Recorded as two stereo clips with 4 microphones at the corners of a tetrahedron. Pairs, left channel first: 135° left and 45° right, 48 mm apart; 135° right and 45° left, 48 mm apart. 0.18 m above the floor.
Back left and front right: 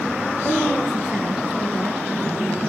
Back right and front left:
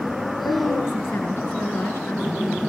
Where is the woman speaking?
115° right, 2.5 m.